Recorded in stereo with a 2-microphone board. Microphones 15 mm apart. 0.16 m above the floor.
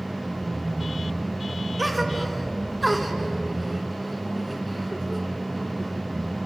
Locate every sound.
1.8 s a gasp: centre (ahead or behind), 2 m